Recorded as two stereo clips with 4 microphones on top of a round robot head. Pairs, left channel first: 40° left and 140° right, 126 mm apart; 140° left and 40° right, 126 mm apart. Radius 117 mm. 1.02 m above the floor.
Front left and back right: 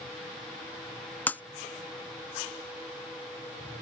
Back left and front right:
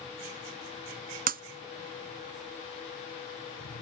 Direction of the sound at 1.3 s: 40° right.